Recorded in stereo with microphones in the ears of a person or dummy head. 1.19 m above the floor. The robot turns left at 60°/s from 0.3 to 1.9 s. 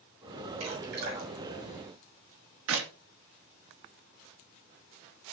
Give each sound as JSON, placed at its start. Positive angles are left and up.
{"t": 0.6, "sound": "dripping", "side_deg": -80, "distance_m": 7.5}
{"t": 2.7, "sound": "a clap", "side_deg": -75, "distance_m": 2.5}